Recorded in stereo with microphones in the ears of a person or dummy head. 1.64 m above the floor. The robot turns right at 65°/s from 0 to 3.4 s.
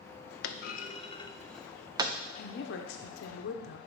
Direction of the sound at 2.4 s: 50° left.